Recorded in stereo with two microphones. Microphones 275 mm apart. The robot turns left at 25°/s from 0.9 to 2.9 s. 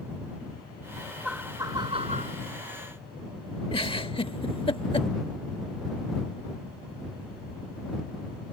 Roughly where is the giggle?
Centre.